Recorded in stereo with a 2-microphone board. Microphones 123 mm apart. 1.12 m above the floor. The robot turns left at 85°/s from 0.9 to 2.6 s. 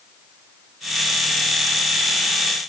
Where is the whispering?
No whispering in this recording.